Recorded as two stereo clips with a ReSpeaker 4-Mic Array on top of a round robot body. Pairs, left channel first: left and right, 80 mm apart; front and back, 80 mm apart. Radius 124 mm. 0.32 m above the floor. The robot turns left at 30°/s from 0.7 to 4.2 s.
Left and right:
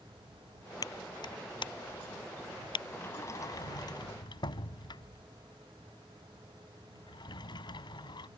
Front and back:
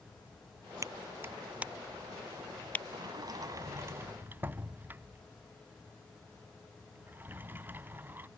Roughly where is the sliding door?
Behind left.